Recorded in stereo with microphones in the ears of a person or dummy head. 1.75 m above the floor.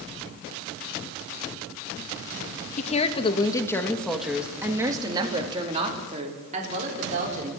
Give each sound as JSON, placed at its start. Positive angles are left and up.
{"t": 2.8, "sound": "a woman speaking", "side_deg": 40, "distance_m": 2.5}